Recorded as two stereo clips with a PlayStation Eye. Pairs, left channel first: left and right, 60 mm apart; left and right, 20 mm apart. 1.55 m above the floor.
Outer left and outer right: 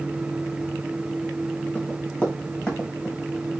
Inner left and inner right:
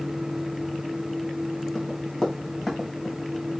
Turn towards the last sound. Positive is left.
turn(degrees=10)  # may be behind; listen again after turning